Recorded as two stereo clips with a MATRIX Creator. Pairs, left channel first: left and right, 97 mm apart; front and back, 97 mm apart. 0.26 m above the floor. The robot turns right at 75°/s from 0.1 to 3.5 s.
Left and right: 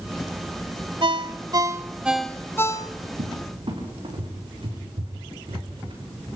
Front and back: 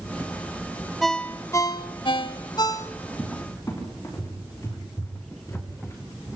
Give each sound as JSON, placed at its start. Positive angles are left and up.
{"t": 1.0, "sound": "a ringtone", "azimuth_deg": -90, "distance_m": 1.1}
{"t": 3.2, "sound": "a cupboard door", "azimuth_deg": -80, "distance_m": 7.5}